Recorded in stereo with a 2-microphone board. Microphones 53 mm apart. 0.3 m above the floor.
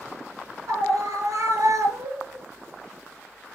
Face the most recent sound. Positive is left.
turn(degrees=-65)  # may be behind; listen again after turning